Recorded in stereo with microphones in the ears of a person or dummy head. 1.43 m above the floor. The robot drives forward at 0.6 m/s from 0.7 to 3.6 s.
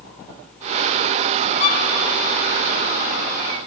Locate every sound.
1.6 s a violin: 40° left (ahead or behind), 0.7 m; by 1.9 s 45° left (ahead or behind), 0.6 m